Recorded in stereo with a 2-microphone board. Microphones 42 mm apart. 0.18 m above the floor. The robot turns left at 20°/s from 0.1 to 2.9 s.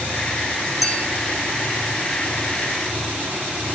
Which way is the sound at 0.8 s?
Centre (ahead or behind).